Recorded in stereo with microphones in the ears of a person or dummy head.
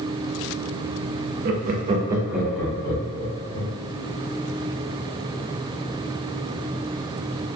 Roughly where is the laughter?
Right.